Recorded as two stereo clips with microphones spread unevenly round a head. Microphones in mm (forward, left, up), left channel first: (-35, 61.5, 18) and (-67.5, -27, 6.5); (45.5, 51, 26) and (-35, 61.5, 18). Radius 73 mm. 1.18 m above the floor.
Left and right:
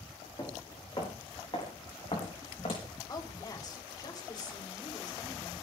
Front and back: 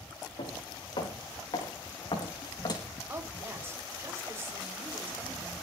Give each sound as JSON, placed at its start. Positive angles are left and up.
{"t": 0.4, "sound": "footsteps", "azimuth_deg": 5, "distance_m": 5.0}
{"t": 3.1, "sound": "a woman speaking", "azimuth_deg": 115, "distance_m": 4.0}